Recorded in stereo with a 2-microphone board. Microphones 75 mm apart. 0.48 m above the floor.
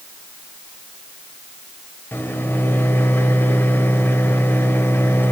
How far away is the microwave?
About 1.3 m.